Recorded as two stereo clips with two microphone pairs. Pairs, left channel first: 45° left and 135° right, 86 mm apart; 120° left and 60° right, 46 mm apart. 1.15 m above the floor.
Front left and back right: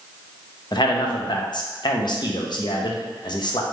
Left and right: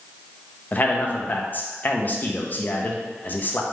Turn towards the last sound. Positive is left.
turn(degrees=70)